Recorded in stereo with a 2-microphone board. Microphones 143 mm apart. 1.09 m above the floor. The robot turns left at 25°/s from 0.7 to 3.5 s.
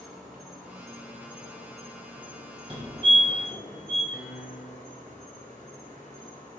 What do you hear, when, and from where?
0.0 s an insect: straight behind, 2 m; by 6.6 s 110° left, 2 m
2.7 s a fire alarm: 35° right (ahead or behind), 2 m; by 4.0 s 20° right (ahead or behind), 2 m
4.1 s a piano: 10° right (ahead or behind), 0.9 m